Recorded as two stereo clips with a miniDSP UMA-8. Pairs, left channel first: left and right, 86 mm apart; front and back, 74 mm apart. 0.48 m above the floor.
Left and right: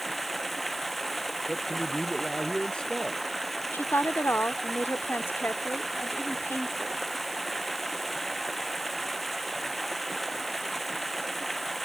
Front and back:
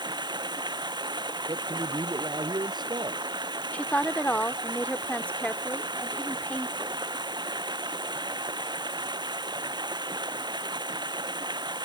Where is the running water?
Straight behind.